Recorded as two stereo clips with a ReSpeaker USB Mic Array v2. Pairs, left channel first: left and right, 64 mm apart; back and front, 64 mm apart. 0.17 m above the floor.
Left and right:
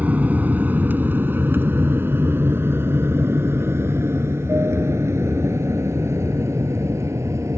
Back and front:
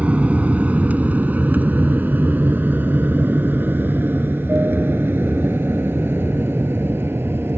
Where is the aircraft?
50° right.